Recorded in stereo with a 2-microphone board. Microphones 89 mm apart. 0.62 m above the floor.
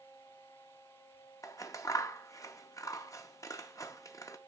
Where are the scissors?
35° left (ahead or behind), 0.5 m.